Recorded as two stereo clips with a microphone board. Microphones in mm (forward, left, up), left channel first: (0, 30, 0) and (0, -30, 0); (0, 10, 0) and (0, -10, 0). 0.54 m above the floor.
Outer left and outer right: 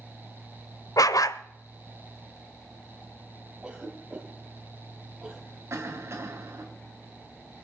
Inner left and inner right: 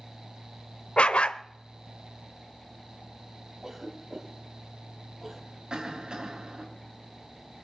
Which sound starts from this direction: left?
A dog barking, at 1.0 s.